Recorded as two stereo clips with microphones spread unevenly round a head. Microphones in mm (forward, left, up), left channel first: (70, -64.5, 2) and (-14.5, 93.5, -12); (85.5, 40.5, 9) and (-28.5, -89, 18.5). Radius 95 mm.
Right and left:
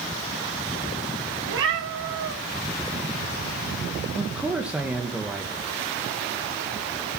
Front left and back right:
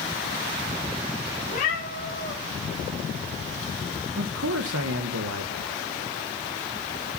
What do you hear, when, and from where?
1.5 s a cat meowing: 100° left, 4 m
4.2 s a man speaking: 155° right, 1.3 m